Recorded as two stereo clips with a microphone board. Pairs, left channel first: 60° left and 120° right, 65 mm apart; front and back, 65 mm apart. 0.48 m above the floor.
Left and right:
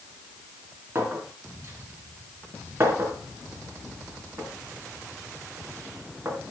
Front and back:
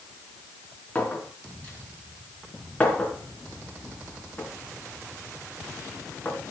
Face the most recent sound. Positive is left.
turn(degrees=-65)